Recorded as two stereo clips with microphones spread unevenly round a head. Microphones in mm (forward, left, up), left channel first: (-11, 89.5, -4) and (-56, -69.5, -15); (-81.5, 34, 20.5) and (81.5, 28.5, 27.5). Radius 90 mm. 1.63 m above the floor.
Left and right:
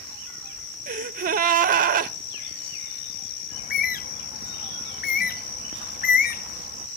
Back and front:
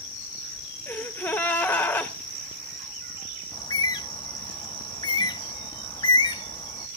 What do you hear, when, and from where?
0.9 s a gasp: 100° right, 0.6 m
3.5 s a bird: 115° left, 0.5 m